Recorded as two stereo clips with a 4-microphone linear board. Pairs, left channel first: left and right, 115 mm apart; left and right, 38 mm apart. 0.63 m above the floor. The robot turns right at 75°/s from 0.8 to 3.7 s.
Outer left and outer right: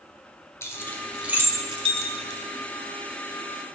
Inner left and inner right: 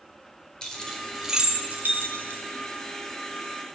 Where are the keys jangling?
20° left (ahead or behind), 1.7 m; by 2.4 s 70° right (ahead or behind), 1.7 m.